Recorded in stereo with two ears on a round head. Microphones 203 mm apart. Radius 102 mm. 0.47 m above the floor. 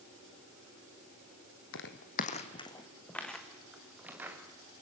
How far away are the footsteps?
About 1.6 m.